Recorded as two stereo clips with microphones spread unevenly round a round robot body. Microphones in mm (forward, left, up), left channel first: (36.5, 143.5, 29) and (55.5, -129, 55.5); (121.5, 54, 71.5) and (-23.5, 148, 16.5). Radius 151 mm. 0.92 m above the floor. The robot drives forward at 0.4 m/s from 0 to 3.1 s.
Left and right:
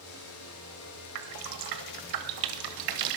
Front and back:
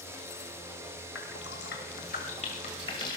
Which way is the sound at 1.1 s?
80° right.